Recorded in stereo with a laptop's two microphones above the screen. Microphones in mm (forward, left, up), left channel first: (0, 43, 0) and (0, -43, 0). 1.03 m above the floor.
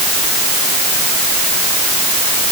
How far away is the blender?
I don't hear a blender.